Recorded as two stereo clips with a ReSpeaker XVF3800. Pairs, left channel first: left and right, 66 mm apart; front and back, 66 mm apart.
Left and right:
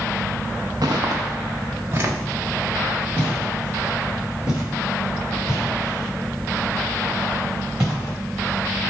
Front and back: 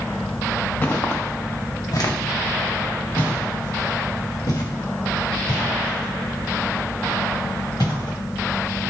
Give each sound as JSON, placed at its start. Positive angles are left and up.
{"t": 0.8, "sound": "footsteps", "azimuth_deg": -65, "distance_m": 0.7}